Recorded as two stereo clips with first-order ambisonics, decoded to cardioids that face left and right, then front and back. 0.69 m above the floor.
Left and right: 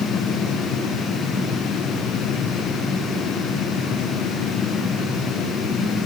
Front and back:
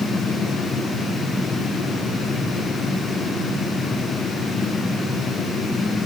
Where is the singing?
I don't hear singing.